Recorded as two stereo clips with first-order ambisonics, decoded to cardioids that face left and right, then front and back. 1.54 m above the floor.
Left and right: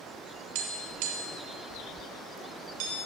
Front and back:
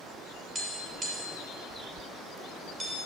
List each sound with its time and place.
0.6 s tapping: 105° right, 6 m